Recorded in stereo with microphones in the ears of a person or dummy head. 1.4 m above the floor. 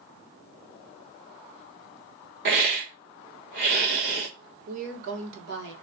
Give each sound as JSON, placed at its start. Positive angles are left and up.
{"t": 2.5, "sound": "a hiss", "side_deg": -55, "distance_m": 0.9}
{"t": 4.7, "sound": "a woman speaking", "side_deg": -70, "distance_m": 1.7}